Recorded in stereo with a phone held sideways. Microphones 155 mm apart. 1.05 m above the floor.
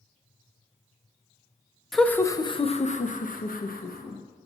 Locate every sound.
1.9 s laughter: centre (ahead or behind), 0.7 m; by 4.2 s 75° left (ahead or behind), 1.3 m